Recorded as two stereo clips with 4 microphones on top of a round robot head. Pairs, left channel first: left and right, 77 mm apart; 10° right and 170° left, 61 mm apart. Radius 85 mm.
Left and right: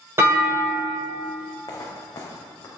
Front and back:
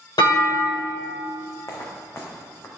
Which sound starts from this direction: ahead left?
Footsteps, at 1.7 s.